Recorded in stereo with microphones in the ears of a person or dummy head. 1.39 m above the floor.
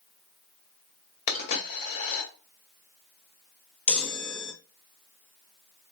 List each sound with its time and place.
1.3 s a dropped coin: 45° left (ahead or behind), 1.9 m
3.9 s a chime: centre (ahead or behind), 0.6 m